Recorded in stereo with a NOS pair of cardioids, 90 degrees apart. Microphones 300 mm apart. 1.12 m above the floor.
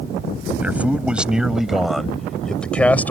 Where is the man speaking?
5° right; by 3.1 s 5° left.